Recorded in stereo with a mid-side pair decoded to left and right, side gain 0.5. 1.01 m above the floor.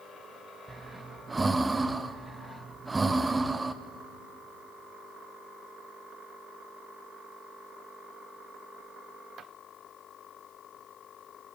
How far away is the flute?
I don't hear a flute.